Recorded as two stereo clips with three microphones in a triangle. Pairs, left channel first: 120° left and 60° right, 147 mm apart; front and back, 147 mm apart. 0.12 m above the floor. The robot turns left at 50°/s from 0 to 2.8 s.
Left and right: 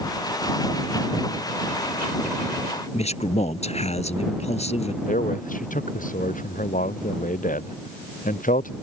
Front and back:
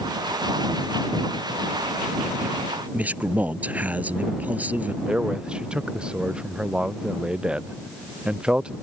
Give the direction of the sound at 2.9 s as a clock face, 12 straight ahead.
9 o'clock.